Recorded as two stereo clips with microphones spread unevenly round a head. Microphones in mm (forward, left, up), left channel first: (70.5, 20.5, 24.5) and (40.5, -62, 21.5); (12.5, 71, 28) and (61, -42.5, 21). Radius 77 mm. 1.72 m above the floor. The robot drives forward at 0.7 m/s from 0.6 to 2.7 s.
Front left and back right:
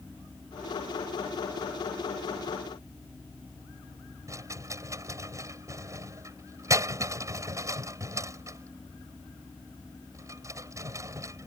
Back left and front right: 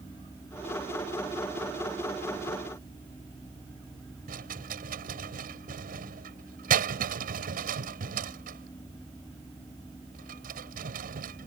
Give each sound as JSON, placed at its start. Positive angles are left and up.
{"t": 4.3, "sound": "a rattle", "azimuth_deg": -55}